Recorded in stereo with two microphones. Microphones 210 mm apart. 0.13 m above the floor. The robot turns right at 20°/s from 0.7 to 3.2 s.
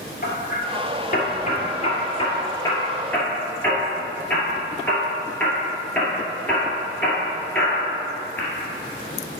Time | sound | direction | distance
0.2 | hammering | 45° left (ahead or behind) | 2 m